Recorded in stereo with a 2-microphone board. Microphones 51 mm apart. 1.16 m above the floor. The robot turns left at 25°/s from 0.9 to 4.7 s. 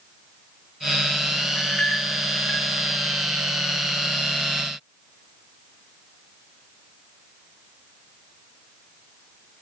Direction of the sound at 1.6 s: 35° left (ahead or behind).